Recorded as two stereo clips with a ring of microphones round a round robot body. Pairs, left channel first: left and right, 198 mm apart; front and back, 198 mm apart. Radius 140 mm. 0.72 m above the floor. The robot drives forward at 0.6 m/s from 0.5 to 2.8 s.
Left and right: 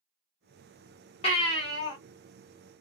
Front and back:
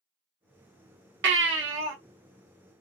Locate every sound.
1.2 s a baby crying: 160° left, 0.8 m; by 1.9 s 165° left, 1.2 m